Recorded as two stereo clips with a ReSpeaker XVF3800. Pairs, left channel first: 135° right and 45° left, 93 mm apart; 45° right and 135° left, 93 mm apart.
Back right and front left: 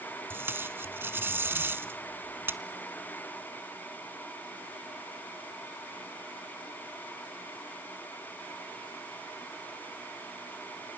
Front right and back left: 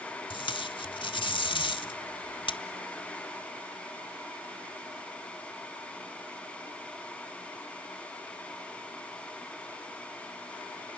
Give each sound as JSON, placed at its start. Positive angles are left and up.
{"t": 0.3, "sound": "tape being pulled", "azimuth_deg": -20, "distance_m": 0.7}